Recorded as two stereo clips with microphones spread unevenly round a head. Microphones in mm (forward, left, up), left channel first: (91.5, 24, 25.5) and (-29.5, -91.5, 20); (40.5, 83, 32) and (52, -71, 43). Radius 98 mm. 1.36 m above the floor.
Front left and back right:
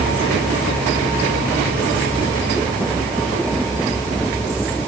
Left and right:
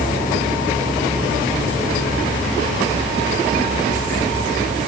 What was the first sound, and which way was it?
Only background noise.